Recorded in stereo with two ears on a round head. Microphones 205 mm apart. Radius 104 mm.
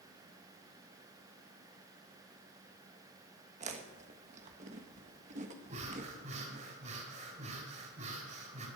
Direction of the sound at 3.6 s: 35° right (ahead or behind).